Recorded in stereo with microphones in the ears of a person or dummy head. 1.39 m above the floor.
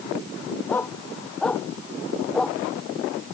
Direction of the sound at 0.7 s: 15° left (ahead or behind).